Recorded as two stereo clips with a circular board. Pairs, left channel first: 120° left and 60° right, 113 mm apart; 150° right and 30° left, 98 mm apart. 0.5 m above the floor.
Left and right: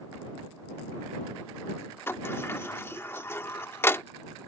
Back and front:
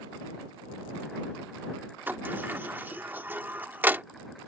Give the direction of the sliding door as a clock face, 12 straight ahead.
9 o'clock.